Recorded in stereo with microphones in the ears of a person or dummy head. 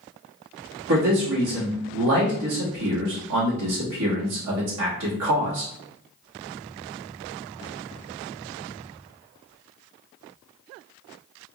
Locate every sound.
0.9 s a man speaking: 70° right (ahead or behind), 1.3 m